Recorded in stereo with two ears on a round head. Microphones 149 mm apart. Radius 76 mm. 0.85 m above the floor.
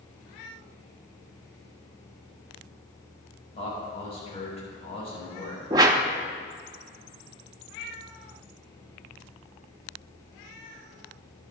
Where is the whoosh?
20° right (ahead or behind), 0.7 m.